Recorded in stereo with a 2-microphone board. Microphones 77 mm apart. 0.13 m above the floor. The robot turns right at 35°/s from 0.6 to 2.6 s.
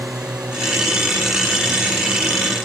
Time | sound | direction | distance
0.0 | a drone | 60° right | ?